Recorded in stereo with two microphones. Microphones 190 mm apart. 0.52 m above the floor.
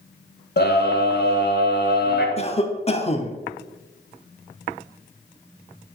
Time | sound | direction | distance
0.6 | a scream | 65° left (ahead or behind) | 2 m
2.4 | a cough | 35° left (ahead or behind) | 0.9 m